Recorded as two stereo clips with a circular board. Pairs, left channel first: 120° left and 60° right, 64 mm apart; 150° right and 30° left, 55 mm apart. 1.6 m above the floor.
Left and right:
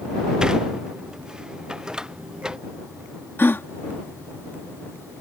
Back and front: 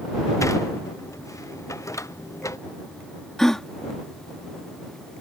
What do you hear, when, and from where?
0.4 s a sliding door: 135° right
3.4 s a gasp: 135° left